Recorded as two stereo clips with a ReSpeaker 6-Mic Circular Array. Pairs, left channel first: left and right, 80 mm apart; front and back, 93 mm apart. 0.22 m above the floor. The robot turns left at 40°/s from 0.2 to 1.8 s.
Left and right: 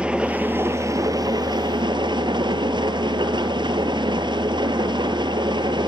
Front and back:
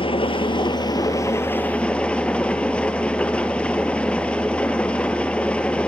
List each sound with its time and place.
0.0 s an engine running: 15° right, 1.5 m; by 5.9 s 80° right, 1.5 m